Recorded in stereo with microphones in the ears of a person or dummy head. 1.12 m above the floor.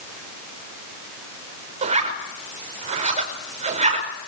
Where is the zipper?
35° right (ahead or behind), 5 m.